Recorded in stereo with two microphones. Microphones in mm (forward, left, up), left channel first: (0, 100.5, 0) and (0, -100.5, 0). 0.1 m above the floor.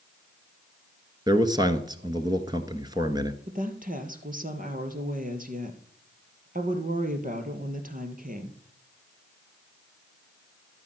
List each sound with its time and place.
1.3 s a man speaking: 20° right (ahead or behind), 1.2 m
3.5 s a woman speaking: 45° right (ahead or behind), 2.5 m